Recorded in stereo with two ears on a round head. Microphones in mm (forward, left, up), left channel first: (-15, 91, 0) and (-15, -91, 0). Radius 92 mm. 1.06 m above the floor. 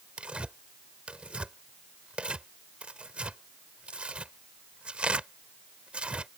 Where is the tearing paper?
5° right (ahead or behind).